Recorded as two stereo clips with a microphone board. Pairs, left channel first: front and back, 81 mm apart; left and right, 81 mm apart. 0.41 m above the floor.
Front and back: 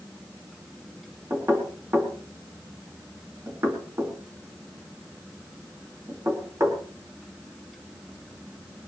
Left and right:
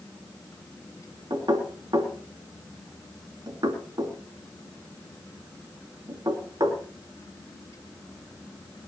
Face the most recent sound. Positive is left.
turn(degrees=-125)